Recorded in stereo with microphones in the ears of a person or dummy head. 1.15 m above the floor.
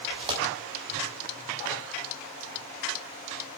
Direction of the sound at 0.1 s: 25° right (ahead or behind).